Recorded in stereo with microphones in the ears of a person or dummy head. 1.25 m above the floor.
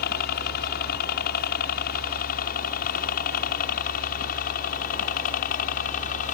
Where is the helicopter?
50° left (ahead or behind); by 6.3 s 45° left (ahead or behind).